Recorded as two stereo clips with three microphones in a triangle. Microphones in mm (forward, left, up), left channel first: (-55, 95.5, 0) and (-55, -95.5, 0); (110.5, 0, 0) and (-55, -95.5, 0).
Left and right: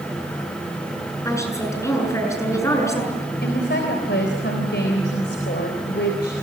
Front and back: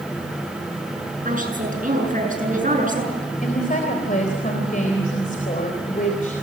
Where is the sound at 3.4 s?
75° left, 3.5 m.